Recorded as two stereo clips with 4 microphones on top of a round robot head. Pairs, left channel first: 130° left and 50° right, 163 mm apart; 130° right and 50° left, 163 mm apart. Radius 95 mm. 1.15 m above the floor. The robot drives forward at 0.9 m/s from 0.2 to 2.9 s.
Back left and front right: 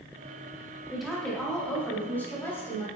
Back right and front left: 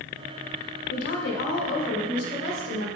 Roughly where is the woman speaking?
Behind right.